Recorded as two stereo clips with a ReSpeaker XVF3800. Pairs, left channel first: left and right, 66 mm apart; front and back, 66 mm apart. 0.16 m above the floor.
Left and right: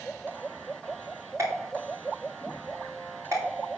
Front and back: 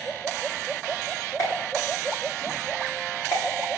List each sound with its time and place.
1.4 s a pop: 45° right, 8 m